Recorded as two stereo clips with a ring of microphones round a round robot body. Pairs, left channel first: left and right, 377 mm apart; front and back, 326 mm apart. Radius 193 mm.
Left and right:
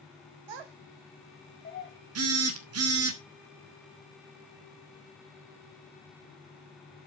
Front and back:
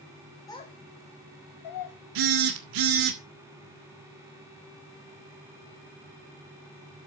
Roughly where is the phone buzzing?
Behind right.